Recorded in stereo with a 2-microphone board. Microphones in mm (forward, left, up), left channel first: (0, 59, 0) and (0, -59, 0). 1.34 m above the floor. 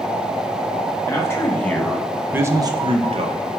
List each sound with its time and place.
1.1 s a man speaking: 25° left (ahead or behind), 1.5 m; by 3.4 s 65° right (ahead or behind), 1.2 m